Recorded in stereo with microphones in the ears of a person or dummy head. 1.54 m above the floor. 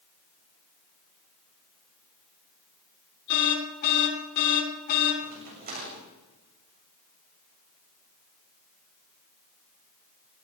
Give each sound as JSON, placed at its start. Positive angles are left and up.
{"t": 3.3, "sound": "an alarm", "side_deg": 50, "distance_m": 7.5}
{"t": 5.2, "sound": "a crack", "side_deg": -45, "distance_m": 8.5}